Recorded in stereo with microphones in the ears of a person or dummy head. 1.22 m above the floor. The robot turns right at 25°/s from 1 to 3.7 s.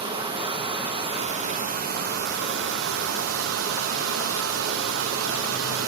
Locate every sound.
0.0 s running water: 145° right, 0.8 m; by 5.9 s 75° right, 0.8 m